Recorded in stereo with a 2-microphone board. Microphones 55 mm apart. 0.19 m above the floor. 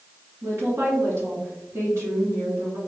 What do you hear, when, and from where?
0.4 s a woman speaking: 55° right (ahead or behind), 1.9 m